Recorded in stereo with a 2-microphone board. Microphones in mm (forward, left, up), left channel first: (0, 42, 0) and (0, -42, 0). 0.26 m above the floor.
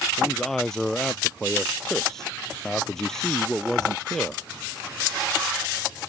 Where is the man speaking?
5° left (ahead or behind).